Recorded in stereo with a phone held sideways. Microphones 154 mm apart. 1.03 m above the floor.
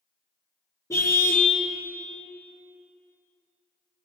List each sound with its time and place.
0.9 s a car horn: 20° left (ahead or behind), 5.5 m